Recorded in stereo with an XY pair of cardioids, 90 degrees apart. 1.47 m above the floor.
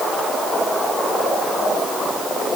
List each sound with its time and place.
Only background noise.